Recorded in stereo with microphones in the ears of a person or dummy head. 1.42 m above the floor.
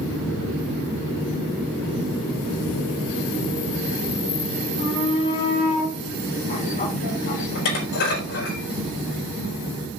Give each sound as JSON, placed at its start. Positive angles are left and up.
{"t": 4.8, "sound": "a shout", "side_deg": 20, "distance_m": 3.5}
{"t": 7.5, "sound": "dishes clattering", "side_deg": 65, "distance_m": 4.5}